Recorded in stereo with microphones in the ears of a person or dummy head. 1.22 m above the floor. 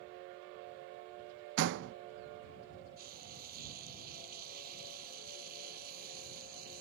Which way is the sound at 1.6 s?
65° right (ahead or behind).